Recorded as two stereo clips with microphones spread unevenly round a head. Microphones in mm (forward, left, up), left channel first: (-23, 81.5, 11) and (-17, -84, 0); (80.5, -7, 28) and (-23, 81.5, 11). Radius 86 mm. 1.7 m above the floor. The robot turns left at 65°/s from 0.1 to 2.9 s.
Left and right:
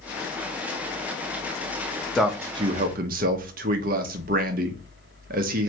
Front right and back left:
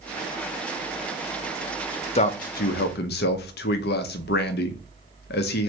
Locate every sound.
2.1 s a man speaking: 5° left, 0.5 m; by 5.7 s 45° right, 0.5 m